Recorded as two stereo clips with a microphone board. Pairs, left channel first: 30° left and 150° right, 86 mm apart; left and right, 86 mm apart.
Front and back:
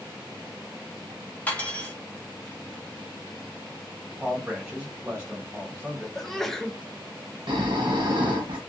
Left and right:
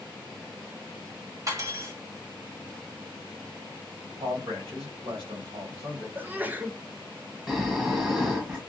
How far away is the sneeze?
About 0.5 m.